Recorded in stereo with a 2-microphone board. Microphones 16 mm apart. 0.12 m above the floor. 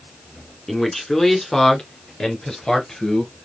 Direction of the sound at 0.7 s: 20° left (ahead or behind).